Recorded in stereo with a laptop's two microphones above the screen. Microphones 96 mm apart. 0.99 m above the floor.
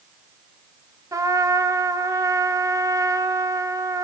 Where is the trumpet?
35° right (ahead or behind), 0.9 m.